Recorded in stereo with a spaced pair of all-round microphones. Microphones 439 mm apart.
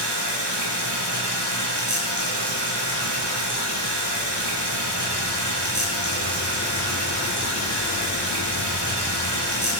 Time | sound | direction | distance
0.0 | running water | 70° right (ahead or behind) | 8 m